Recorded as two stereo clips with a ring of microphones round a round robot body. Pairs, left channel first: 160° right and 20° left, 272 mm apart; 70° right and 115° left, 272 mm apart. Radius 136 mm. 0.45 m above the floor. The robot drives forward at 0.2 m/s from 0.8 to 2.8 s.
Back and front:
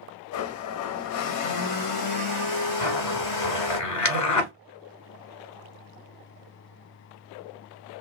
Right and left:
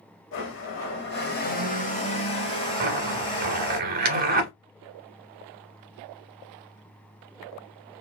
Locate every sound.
0.3 s a blender: 115° right, 0.6 m; by 3.8 s 140° right, 0.9 m
2.8 s a zipper: 170° left, 1.0 m